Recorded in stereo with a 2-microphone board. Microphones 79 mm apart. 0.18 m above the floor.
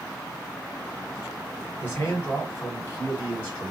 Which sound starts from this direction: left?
A man speaking, at 1.8 s.